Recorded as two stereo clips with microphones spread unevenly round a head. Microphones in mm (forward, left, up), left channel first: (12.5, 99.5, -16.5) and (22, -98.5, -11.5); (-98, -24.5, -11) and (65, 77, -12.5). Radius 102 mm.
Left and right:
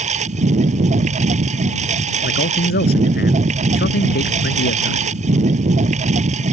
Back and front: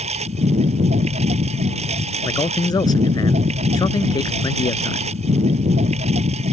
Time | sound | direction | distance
0.0 | a lawn mower | 30° right | ?
2.2 | a man speaking | 140° left | ?